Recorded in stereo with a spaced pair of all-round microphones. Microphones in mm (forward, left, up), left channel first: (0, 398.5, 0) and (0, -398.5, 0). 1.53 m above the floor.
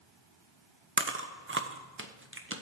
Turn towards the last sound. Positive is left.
turn(degrees=-15)  # may be behind; listen again after turning